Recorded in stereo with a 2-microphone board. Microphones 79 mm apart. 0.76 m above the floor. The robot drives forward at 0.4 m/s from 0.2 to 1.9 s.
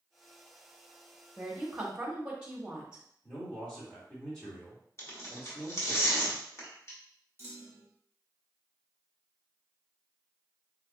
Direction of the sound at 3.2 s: 10° left (ahead or behind).